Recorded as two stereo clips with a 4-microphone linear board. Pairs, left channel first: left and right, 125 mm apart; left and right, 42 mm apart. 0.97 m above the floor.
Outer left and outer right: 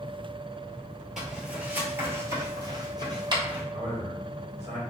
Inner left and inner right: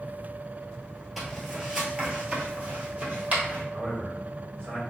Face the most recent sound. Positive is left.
turn(degrees=-60)  # may be behind; listen again after turning